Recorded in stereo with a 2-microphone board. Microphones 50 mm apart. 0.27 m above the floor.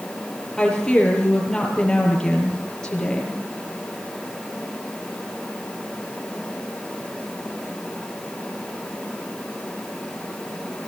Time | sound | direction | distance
0.6 | a woman speaking | 15° left (ahead or behind) | 7 m